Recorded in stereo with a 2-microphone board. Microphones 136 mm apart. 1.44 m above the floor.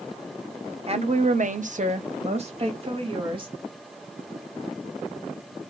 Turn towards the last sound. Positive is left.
turn(degrees=-40)  # may be behind; listen again after turning